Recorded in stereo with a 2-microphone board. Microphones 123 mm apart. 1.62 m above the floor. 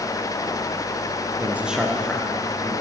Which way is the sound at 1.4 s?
20° right (ahead or behind).